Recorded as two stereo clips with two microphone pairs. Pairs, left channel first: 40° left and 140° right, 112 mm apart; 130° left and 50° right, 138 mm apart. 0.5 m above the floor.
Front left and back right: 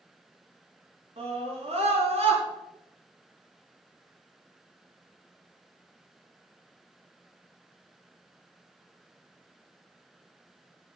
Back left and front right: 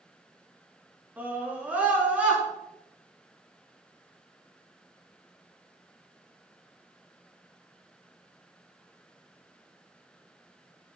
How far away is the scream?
About 7 m.